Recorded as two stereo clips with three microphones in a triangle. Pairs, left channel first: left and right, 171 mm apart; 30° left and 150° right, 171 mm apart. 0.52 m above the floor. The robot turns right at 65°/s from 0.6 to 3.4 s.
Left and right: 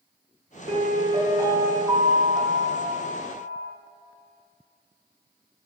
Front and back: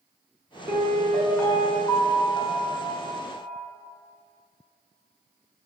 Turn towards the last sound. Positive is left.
turn(degrees=85)